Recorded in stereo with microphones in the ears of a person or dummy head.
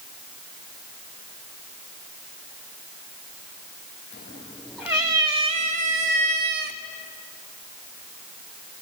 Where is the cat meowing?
30° left (ahead or behind), 0.7 m; by 6.8 s 60° right (ahead or behind), 1.3 m.